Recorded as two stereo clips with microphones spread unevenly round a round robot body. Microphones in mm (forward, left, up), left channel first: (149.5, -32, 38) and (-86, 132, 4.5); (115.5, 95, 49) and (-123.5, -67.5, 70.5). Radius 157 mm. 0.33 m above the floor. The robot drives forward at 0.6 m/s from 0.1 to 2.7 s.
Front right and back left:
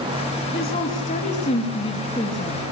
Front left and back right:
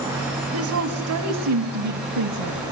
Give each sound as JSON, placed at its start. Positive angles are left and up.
{"t": 0.5, "sound": "a woman speaking", "azimuth_deg": -100, "distance_m": 3.0}